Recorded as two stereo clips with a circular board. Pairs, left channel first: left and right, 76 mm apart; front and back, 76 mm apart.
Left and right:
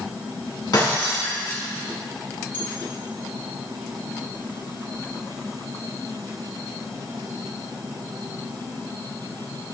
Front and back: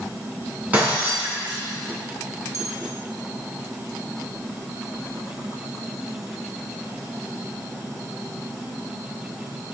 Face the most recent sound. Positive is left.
turn(degrees=150)